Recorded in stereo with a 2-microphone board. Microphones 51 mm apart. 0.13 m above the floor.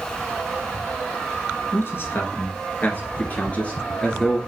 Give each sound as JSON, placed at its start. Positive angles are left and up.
{"t": 1.7, "sound": "a man speaking", "side_deg": 50, "distance_m": 1.8}